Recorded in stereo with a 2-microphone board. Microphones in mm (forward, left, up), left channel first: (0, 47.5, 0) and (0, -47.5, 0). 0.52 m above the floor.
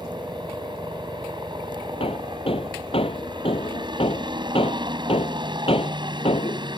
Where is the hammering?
85° left.